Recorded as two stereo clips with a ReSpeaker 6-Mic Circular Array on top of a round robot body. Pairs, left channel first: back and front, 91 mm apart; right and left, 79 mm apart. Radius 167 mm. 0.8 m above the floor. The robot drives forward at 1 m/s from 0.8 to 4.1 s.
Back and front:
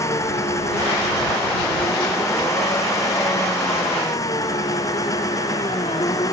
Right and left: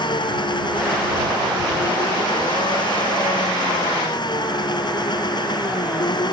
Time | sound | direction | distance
0.0 | an engine running | 120° right | ?